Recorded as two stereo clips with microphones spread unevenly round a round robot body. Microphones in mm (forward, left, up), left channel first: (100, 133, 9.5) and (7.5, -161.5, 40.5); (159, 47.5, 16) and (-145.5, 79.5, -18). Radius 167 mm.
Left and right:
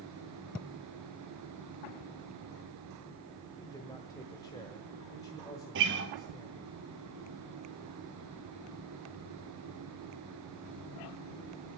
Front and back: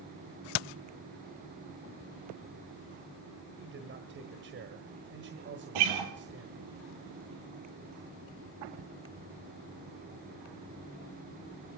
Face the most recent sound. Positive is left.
turn(degrees=-165)